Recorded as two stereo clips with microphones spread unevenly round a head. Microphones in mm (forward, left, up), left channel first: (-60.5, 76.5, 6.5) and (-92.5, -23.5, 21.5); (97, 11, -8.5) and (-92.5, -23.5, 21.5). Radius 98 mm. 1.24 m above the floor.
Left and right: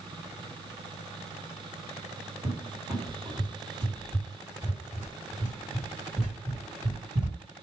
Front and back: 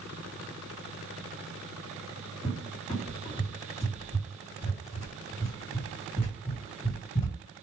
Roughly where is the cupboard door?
Ahead right.